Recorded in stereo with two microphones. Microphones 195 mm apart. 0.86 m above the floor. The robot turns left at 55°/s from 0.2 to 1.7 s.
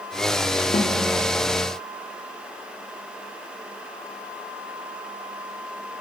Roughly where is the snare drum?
Left.